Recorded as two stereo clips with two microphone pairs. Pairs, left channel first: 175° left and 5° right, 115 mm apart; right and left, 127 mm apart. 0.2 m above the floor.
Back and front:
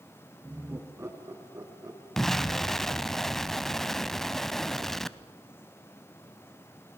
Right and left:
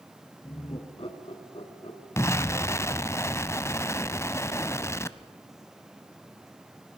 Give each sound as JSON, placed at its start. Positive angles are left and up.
{"t": 0.4, "sound": "laughter", "azimuth_deg": -65, "distance_m": 2.5}
{"t": 2.2, "sound": "an explosion", "azimuth_deg": -90, "distance_m": 0.6}